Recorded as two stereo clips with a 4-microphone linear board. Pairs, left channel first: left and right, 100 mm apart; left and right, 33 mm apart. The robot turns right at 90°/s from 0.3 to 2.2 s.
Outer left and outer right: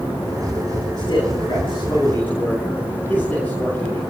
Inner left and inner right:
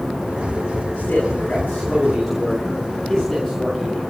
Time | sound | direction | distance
1.0 | a man speaking | 50° left | 6 m